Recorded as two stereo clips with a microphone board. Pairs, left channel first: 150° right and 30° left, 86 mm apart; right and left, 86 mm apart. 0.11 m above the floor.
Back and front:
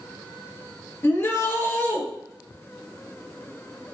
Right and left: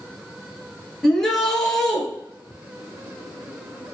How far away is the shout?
About 1.4 m.